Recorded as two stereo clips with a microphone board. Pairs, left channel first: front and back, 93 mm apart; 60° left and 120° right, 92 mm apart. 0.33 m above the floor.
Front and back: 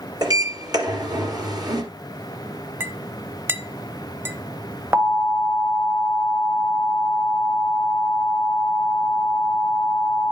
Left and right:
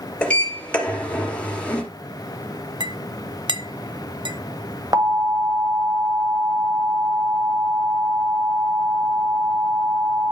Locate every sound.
0.2 s a sliding door: 135° left, 2.5 m
2.8 s a clink: 120° right, 0.8 m
4.9 s an alarm: 130° right, 1.3 m